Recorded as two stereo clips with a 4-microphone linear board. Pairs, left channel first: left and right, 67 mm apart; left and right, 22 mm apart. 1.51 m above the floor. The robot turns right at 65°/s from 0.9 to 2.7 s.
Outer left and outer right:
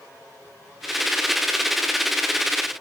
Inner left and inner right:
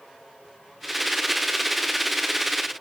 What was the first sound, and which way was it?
Only background noise.